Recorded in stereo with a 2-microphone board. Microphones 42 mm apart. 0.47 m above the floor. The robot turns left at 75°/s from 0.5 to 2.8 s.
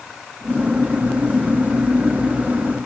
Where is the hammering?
No hammering in this recording.